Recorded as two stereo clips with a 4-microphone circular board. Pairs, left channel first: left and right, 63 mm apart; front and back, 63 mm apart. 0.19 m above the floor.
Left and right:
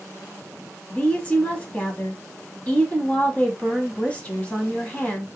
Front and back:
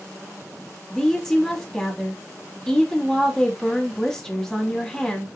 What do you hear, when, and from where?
0.9 s a woman speaking: 70° left, 1.0 m